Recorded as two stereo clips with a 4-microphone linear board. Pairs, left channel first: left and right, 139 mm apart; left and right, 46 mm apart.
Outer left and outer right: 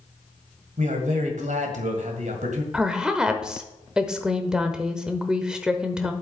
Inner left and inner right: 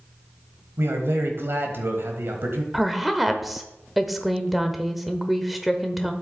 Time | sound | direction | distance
0.8 | a man speaking | 60° right (ahead or behind) | 1.8 m
2.7 | a woman speaking | 5° right (ahead or behind) | 1.0 m